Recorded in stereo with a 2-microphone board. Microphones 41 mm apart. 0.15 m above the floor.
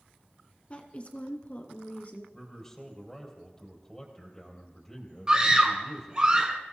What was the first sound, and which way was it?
A woman speaking, 35° left (ahead or behind).